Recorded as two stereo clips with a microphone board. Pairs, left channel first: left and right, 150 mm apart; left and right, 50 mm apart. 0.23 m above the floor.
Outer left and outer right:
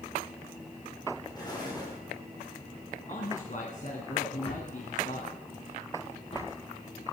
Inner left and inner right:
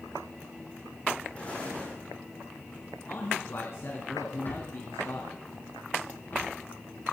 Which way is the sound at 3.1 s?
60° left (ahead or behind).